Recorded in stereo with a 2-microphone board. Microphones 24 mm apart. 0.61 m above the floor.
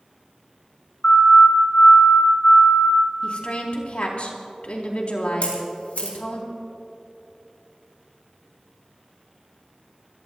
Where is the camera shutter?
80° left, 4.5 m.